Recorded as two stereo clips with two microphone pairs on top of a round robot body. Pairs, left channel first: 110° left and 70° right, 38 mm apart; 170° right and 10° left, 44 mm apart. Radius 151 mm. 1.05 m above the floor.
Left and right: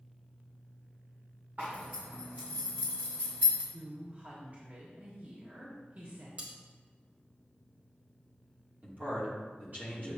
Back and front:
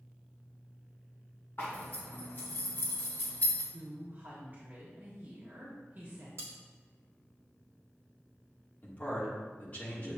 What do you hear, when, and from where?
1.6 s a zipper: 125° right, 1.2 m
3.7 s a woman speaking: 30° right, 1.5 m
6.4 s cutlery clinking: 20° right, 1.9 m
8.8 s a man speaking: 115° right, 2.5 m